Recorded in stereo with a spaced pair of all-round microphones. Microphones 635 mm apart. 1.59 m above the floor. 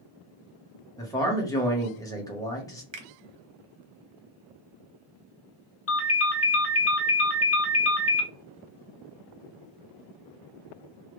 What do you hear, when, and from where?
1.0 s a man speaking: 5° left (ahead or behind), 0.8 m
2.9 s a finger snap: 50° right (ahead or behind), 0.6 m
5.9 s a ringtone: 25° left (ahead or behind), 0.6 m